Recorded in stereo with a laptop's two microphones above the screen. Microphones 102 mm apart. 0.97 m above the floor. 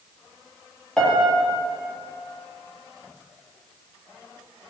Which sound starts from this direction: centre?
A piano, at 1.0 s.